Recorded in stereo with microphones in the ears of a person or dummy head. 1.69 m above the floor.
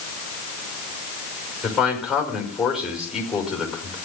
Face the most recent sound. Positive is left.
turn(degrees=5)  # may be behind; listen again after turning